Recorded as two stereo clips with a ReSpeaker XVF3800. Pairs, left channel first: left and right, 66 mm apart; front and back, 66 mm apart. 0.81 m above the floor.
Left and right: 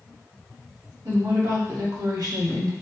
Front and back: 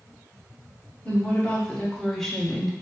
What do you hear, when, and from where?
1.1 s a woman speaking: 70° right, 1.7 m; by 2.7 s 90° right, 1.1 m